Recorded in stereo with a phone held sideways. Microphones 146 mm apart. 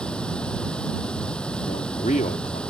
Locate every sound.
0.0 s running water: 5° left (ahead or behind)
1.6 s a man speaking: 65° left (ahead or behind)